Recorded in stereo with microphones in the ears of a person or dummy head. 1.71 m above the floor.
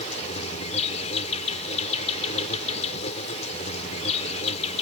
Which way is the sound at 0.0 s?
35° left (ahead or behind).